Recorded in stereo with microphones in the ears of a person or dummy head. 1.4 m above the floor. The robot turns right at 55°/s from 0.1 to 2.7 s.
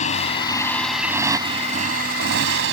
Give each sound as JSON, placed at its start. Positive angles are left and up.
{"t": 0.0, "sound": "a motorcycle", "azimuth_deg": 130}